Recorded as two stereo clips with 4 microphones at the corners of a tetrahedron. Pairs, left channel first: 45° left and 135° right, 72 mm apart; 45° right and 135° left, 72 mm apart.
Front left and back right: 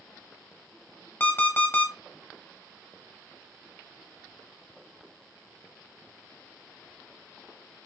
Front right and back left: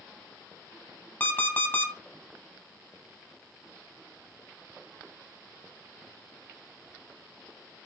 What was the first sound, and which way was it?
An alarm clock, straight ahead.